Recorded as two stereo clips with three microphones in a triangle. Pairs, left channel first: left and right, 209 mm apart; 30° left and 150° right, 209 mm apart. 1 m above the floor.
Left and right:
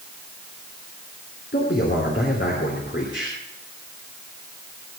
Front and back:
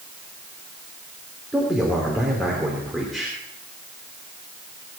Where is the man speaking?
120° left, 3 m.